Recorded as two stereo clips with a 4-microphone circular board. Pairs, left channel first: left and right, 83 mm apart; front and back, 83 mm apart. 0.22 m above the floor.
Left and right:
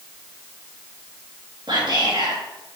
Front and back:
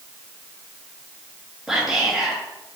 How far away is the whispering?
About 3 m.